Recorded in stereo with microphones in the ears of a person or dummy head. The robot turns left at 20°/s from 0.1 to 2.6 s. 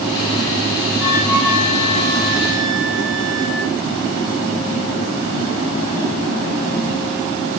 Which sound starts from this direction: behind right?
A flute, at 1.0 s.